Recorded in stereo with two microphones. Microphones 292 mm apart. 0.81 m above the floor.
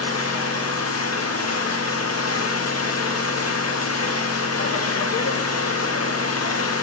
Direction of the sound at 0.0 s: 55° left (ahead or behind).